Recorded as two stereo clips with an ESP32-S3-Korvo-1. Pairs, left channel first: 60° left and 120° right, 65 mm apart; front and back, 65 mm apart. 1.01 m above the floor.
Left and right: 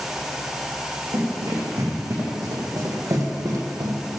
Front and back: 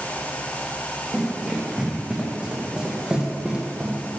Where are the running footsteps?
100° right, 4.5 m; by 4.2 s 110° right, 2 m.